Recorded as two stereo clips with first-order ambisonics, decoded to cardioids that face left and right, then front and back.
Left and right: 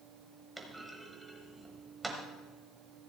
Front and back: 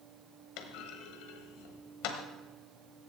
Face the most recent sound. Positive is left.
turn(degrees=-5)